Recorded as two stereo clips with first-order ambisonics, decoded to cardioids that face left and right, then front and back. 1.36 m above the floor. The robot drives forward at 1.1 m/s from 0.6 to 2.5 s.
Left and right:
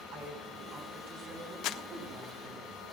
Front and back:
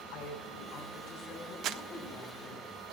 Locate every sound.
0.1 s a woman speaking: 40° right, 6 m; by 2.6 s 60° right, 4.5 m
1.6 s crumpling: 130° left, 0.5 m; by 1.8 s 140° left, 0.7 m